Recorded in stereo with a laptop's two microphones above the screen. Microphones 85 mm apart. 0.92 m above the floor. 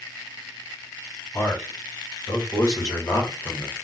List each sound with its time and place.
1.3 s a man speaking: 30° left (ahead or behind), 1.7 m; by 3.8 s 25° left (ahead or behind), 0.9 m